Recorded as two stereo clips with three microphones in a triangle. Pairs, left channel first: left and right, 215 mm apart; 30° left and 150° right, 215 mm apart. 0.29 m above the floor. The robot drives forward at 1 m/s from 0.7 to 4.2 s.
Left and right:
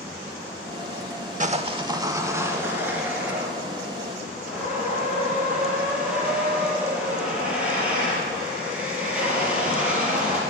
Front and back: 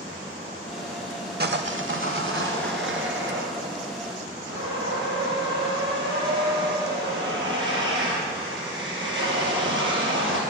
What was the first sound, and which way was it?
Sawing, 135° right.